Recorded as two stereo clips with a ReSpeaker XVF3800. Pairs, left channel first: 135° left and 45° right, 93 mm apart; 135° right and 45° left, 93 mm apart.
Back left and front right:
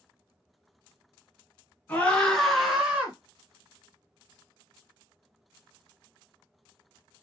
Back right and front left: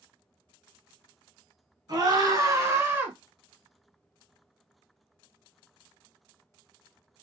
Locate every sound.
1.9 s a scream: 65° left, 2 m; by 3.1 s straight ahead, 1.6 m